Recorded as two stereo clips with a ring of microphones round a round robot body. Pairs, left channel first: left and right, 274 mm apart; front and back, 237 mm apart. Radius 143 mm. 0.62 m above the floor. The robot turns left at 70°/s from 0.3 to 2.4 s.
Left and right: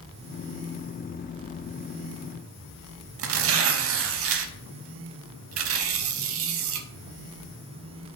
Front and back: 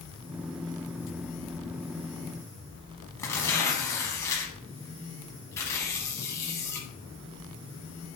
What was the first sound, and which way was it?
Tearing paper, 75° right.